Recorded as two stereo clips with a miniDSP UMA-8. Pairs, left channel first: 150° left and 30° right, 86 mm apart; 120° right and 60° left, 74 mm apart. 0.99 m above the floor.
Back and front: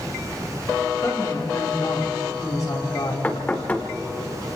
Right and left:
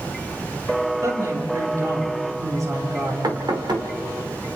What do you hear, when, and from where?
1.0 s a woman speaking: 100° left, 6 m
3.2 s knocking: 80° left, 2 m